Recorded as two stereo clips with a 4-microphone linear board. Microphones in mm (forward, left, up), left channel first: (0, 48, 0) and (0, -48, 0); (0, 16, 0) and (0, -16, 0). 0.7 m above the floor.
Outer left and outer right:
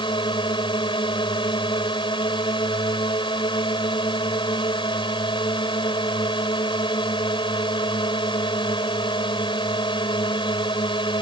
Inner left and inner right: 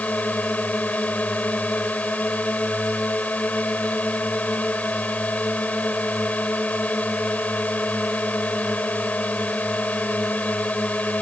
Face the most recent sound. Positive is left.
turn(degrees=55)  # may be behind; listen again after turning